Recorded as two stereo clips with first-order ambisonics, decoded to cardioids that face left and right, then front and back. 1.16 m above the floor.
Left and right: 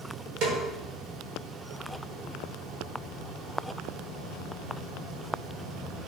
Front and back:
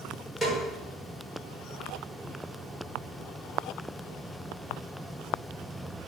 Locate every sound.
0.4 s a snare drum: 80° right, 0.8 m